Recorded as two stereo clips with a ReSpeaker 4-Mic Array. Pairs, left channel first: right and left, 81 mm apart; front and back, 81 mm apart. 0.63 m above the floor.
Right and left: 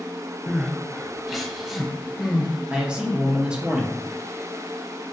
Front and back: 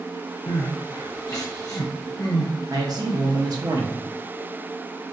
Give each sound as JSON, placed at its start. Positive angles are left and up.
{"t": 0.5, "sound": "crying", "azimuth_deg": 5, "distance_m": 0.9}
{"t": 2.7, "sound": "a man speaking", "azimuth_deg": 165, "distance_m": 0.9}